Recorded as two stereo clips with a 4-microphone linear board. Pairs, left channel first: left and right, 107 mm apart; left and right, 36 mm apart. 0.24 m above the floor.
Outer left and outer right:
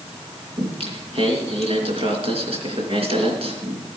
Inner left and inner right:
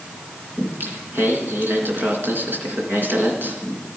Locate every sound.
0.6 s singing: 65° right (ahead or behind), 3.5 m